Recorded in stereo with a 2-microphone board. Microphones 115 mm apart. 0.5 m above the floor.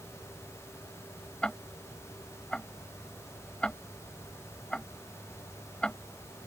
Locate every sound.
1.4 s ticking: 10° left (ahead or behind)